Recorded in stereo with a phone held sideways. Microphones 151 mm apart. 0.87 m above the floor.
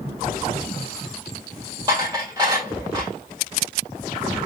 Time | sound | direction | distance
1.9 | dishes clattering | 30° right (ahead or behind) | 2 m